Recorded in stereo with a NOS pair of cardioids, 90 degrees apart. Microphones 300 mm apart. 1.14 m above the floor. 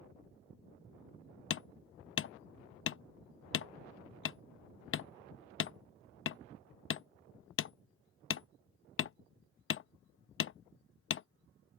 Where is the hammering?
45° left.